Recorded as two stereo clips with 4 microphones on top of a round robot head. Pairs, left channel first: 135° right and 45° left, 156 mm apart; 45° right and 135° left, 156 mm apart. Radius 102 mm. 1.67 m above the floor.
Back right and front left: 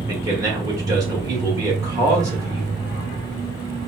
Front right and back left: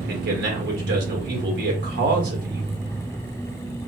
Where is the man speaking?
115° left, 1.5 m.